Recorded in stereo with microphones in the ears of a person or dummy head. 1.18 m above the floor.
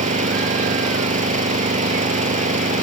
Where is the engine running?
35° right (ahead or behind).